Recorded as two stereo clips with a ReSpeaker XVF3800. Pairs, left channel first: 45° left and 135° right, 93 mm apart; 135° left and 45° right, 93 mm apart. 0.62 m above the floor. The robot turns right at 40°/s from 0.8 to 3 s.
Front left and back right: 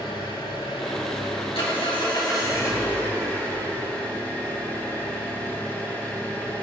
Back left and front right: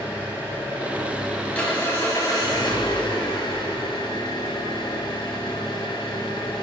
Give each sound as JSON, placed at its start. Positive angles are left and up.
{"t": 0.0, "sound": "an engine running", "azimuth_deg": 30, "distance_m": 4.5}